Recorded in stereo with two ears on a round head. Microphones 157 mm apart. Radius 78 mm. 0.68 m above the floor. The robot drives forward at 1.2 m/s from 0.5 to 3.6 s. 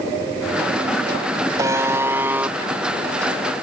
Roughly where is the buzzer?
Right.